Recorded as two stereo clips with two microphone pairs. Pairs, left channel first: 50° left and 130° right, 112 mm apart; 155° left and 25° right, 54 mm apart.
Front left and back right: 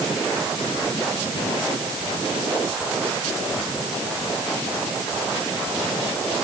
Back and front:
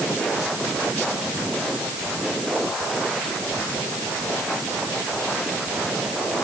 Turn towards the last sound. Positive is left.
No sound to turn to.